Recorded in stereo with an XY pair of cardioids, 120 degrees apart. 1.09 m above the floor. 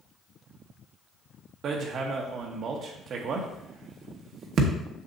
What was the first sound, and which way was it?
Hammering, 55° right.